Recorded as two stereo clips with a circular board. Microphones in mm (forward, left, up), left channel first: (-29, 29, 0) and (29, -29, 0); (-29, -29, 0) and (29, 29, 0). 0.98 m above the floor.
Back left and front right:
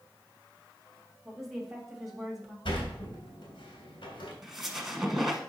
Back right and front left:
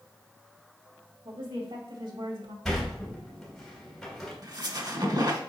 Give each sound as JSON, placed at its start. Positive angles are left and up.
{"t": 1.2, "sound": "a woman speaking", "azimuth_deg": 40, "distance_m": 2.0}
{"t": 2.6, "sound": "a sliding door", "azimuth_deg": 140, "distance_m": 2.5}
{"t": 4.4, "sound": "a squeak", "azimuth_deg": 40, "distance_m": 1.3}